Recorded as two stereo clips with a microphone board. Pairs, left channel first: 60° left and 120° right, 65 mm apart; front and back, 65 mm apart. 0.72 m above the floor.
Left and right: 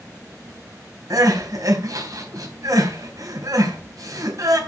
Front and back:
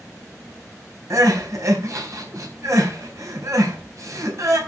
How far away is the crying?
About 4 m.